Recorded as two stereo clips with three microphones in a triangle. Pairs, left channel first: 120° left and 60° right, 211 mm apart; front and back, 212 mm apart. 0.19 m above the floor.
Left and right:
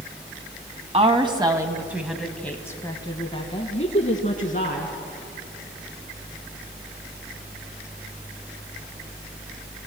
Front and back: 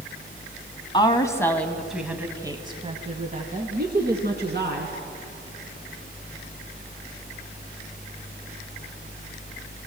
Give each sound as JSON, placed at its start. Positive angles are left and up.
{"t": 0.9, "sound": "a woman speaking", "azimuth_deg": -40, "distance_m": 1.6}